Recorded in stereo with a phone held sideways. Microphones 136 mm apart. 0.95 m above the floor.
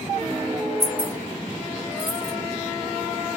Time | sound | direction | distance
0.8 | keys jangling | 25° left (ahead or behind) | 1.0 m